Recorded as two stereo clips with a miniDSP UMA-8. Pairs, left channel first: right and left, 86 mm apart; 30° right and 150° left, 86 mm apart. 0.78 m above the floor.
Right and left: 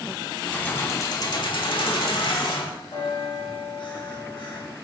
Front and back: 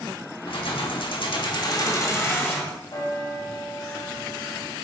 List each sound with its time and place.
0.5 s keys jangling: 15° right, 1.2 m; by 2.7 s 100° right, 1.8 m
2.9 s a bell: 75° right, 3 m